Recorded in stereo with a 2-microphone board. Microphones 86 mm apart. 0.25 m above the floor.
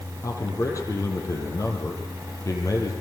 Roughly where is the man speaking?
Left.